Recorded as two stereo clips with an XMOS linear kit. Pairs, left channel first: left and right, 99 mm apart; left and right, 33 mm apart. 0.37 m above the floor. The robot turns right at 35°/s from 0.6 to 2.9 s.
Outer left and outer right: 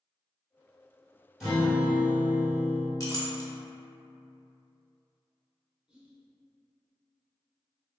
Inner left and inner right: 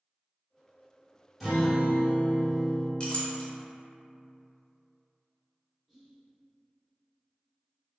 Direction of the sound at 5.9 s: 10° right (ahead or behind).